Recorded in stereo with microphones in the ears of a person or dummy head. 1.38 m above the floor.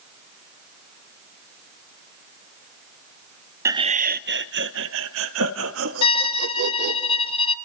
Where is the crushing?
I don't hear crushing.